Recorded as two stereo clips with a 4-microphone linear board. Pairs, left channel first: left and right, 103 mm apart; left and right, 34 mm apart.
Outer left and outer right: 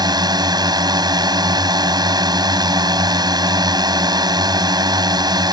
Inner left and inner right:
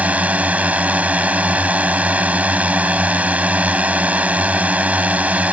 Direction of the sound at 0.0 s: 40° right (ahead or behind).